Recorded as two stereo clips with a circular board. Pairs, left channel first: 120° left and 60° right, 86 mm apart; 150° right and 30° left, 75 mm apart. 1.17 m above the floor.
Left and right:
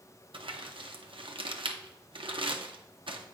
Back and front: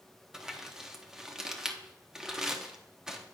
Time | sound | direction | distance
0.3 | crumpling | 55° right | 0.7 m